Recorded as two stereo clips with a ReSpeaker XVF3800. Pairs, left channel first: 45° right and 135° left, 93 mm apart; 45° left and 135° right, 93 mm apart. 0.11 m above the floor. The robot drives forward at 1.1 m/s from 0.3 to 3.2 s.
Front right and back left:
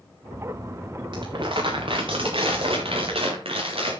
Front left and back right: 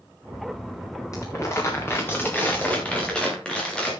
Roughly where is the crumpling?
Left.